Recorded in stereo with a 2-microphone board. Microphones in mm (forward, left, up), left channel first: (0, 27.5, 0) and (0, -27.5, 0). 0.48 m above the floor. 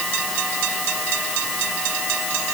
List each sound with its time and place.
Only background noise.